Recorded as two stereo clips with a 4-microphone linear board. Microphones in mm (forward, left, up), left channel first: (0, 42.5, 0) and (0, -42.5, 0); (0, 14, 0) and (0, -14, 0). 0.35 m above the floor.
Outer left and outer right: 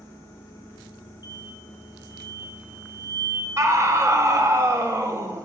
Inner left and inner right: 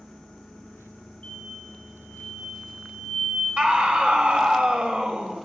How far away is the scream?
About 1.3 m.